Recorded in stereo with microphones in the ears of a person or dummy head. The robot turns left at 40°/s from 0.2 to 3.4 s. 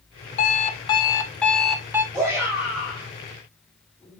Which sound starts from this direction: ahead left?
An alarm clock, at 0.4 s.